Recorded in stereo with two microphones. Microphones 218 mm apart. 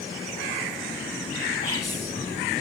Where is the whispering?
15° left (ahead or behind), 1.4 m.